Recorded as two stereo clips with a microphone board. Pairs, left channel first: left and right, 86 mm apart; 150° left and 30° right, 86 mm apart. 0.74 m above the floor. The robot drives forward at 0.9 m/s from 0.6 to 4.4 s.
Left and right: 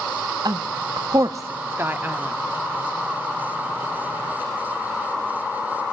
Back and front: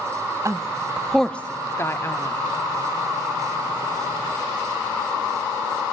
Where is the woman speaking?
70° right, 0.7 m; by 2.4 s 160° right, 1.6 m.